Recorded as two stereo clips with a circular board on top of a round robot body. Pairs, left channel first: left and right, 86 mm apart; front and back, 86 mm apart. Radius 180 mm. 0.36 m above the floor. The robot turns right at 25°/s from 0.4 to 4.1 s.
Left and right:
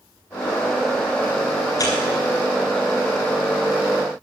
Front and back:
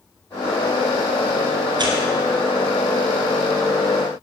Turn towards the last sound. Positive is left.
turn(degrees=-165)